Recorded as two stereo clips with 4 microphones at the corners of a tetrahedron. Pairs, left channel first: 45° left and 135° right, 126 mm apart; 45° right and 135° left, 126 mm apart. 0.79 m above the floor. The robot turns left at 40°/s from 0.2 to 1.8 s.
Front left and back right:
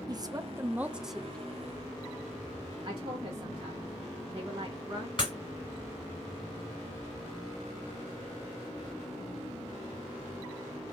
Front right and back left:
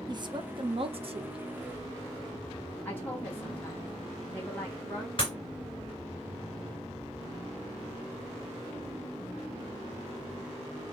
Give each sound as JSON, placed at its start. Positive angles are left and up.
{"t": 0.1, "sound": "a woman speaking", "azimuth_deg": 175, "distance_m": 0.6}
{"t": 2.9, "sound": "a woman speaking", "azimuth_deg": -115, "distance_m": 1.0}
{"t": 5.2, "sound": "breaking glass", "azimuth_deg": 0, "distance_m": 2.5}